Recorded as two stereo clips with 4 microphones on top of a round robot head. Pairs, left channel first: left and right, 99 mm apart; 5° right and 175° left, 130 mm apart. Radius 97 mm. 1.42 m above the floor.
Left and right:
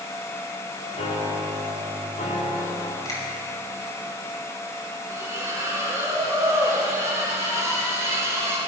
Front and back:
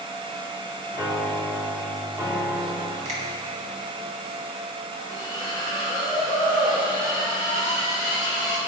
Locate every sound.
0.9 s a piano: 110° left, 3.5 m
3.0 s a finger snap: 140° left, 6 m
5.1 s a splash: 155° right, 5 m